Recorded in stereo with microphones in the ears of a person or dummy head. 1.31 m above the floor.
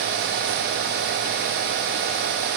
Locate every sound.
Only background noise.